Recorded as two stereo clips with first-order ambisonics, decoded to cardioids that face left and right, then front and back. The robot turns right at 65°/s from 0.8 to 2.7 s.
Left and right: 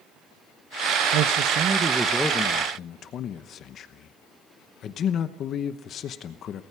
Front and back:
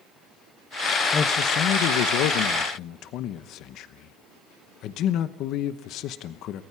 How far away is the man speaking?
About 0.9 m.